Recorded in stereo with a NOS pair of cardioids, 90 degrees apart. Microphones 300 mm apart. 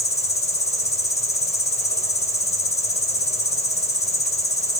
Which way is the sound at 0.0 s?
20° left.